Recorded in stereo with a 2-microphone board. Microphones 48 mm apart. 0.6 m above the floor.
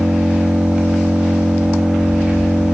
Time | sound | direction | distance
0.0 | an engine running | 15° right (ahead or behind) | 0.8 m